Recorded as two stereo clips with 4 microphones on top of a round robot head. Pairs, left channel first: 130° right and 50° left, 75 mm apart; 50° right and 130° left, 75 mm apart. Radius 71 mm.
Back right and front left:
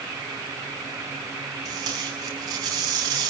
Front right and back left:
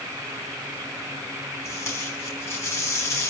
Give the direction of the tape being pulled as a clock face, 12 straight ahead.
12 o'clock.